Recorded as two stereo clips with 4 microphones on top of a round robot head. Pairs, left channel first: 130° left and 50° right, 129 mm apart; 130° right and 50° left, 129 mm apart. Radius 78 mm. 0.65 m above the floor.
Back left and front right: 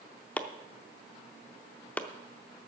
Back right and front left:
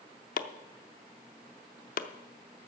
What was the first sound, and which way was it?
Chopping, 150° right.